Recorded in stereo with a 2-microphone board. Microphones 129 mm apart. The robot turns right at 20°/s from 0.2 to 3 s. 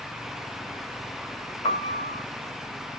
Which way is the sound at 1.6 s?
50° left (ahead or behind).